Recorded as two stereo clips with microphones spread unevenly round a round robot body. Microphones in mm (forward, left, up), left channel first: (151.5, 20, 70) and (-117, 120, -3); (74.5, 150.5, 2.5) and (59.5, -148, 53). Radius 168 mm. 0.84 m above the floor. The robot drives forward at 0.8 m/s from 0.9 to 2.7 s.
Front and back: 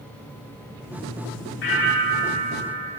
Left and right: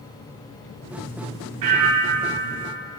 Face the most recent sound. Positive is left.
turn(degrees=-90)